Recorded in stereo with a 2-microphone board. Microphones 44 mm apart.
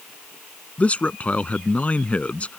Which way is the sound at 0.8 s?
30° left (ahead or behind).